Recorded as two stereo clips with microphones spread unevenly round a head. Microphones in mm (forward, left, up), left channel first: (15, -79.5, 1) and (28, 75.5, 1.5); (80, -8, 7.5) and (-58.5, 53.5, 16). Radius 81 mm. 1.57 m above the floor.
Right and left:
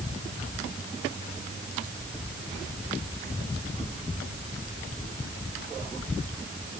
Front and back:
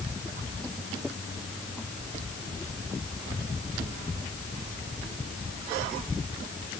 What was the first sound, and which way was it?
Only background noise.